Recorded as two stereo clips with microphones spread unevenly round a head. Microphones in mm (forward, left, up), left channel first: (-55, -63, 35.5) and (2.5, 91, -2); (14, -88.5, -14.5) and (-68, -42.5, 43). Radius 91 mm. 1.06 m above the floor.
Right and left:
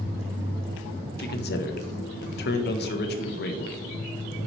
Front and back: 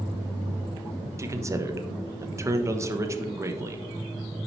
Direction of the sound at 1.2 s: 135° right.